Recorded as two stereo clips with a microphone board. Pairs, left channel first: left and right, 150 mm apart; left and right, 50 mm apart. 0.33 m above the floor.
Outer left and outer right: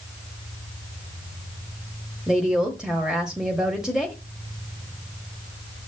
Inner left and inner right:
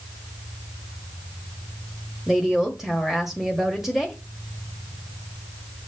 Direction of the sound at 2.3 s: 5° right (ahead or behind).